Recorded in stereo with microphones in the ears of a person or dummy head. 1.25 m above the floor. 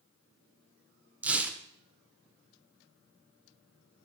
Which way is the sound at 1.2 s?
5° right (ahead or behind).